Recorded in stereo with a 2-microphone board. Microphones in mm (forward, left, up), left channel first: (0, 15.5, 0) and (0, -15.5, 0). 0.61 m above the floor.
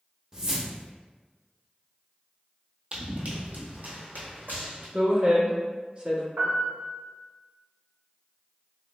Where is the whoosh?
25° right (ahead or behind), 0.7 m.